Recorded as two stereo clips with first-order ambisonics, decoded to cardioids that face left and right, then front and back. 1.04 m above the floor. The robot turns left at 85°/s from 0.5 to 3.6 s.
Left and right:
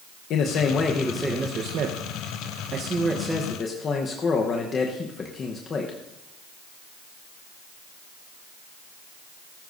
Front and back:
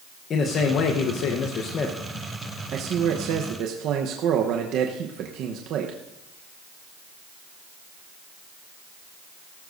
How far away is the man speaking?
About 0.9 m.